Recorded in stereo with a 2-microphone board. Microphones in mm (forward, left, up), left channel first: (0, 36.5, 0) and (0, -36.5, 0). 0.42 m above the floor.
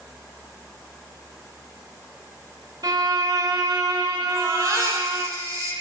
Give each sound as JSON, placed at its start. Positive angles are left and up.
{"t": 2.8, "sound": "a violin", "side_deg": -60, "distance_m": 1.2}
{"t": 4.3, "sound": "a baby crying", "side_deg": -45, "distance_m": 4.0}